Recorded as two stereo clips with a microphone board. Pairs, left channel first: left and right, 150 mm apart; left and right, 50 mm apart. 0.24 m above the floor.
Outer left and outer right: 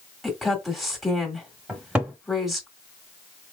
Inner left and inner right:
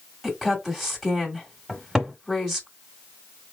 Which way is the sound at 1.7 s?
10° right (ahead or behind).